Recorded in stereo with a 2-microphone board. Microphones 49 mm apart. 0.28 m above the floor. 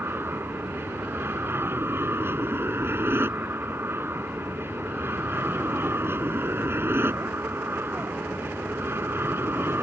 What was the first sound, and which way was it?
An aircraft, 55° right (ahead or behind).